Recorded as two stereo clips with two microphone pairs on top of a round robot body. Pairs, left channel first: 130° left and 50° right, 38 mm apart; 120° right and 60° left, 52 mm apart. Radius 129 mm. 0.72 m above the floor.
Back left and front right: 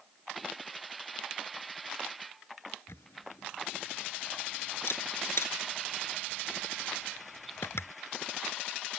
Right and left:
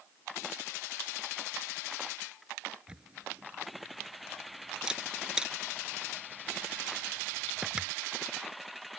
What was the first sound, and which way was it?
A camera shutter, 135° left.